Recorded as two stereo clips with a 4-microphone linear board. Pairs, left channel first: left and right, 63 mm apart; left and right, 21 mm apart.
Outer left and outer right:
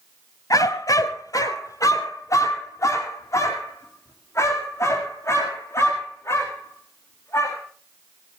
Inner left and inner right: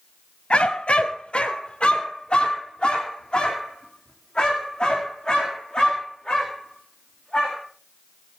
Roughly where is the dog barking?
Left.